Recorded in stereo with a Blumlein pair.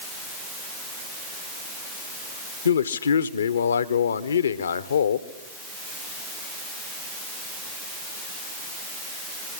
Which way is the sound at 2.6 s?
70° left.